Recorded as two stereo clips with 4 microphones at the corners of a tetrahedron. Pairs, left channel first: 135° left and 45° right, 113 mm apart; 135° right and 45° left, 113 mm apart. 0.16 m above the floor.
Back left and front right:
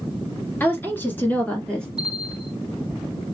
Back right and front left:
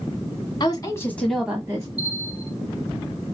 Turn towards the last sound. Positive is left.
turn(degrees=115)